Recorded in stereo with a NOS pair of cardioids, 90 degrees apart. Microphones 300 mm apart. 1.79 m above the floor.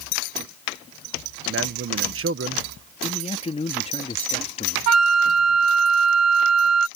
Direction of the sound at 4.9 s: 60° right.